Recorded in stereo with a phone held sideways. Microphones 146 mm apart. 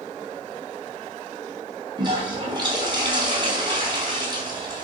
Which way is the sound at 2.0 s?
30° right (ahead or behind).